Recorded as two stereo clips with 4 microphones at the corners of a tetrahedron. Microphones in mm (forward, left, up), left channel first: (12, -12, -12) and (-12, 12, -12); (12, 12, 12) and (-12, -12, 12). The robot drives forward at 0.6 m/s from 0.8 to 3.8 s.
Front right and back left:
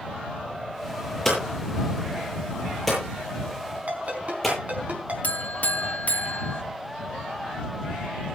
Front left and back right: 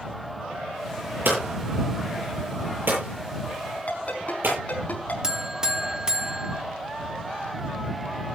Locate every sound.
1.2 s hammering: 125° right, 9.5 m; by 4.6 s 130° right, 10.5 m
3.9 s a ringtone: 90° left, 5 m
5.2 s a buzzer: 65° right, 1.3 m